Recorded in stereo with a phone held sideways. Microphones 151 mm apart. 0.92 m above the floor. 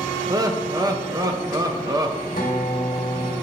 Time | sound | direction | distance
0.3 | laughter | 25° right (ahead or behind) | 0.8 m
2.4 | a guitar | 65° left (ahead or behind) | 1.4 m